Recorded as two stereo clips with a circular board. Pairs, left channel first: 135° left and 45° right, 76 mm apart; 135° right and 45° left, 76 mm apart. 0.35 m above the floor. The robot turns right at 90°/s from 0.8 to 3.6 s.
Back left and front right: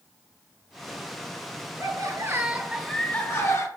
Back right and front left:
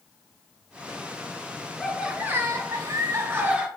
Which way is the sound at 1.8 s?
50° right.